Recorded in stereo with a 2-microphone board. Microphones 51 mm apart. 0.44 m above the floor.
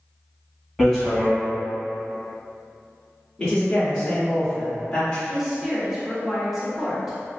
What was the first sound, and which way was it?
Hammering, 10° left (ahead or behind).